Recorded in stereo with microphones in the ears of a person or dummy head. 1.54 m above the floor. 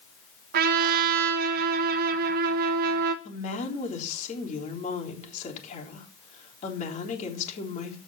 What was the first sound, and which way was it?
A trumpet, 50° right (ahead or behind).